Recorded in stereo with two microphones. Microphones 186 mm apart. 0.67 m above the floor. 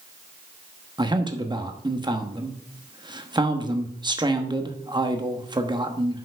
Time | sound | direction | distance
1.0 | a man speaking | 25° right (ahead or behind) | 1.0 m